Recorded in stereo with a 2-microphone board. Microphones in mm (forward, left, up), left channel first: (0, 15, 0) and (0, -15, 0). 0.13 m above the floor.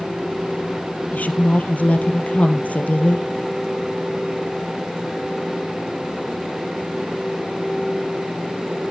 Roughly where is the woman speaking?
Left.